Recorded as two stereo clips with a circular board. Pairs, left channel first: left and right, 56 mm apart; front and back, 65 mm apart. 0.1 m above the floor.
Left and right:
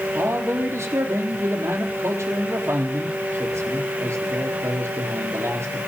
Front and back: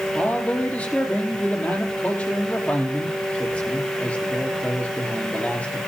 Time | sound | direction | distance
0.1 | a man speaking | 65° right | 3 m